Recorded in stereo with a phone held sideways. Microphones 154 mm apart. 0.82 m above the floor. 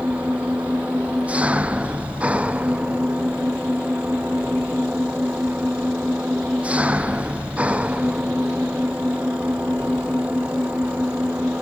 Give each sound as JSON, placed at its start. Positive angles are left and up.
{"t": 0.0, "sound": "an engine running", "side_deg": -10}